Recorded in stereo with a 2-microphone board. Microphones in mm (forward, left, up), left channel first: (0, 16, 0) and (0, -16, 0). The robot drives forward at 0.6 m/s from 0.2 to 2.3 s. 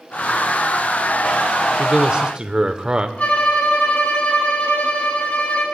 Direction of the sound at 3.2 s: 55° left (ahead or behind).